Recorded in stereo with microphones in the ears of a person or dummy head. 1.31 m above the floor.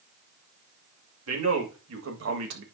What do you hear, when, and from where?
1.3 s a man speaking: 90° right, 2 m; by 2.6 s 70° right (ahead or behind), 1.2 m